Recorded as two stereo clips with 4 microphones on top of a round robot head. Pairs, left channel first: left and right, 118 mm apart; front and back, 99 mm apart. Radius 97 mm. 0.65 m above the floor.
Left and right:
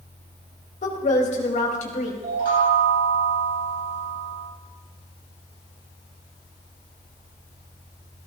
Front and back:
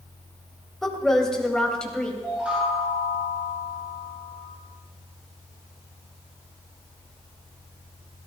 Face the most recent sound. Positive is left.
turn(degrees=-95)